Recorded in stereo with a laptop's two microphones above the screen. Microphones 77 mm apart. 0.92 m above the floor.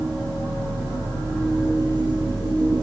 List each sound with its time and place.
0.0 s a machine running: 45° right (ahead or behind), 7 m